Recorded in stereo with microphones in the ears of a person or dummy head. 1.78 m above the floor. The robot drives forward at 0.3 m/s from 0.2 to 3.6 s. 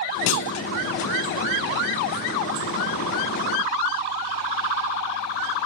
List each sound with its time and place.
0.3 s a clunk: 80° left, 0.5 m; by 0.7 s 75° left (ahead or behind), 0.5 m